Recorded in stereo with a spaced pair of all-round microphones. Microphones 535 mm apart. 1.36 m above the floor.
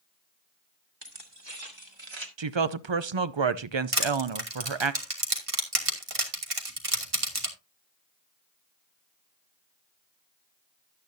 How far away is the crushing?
About 2.5 m.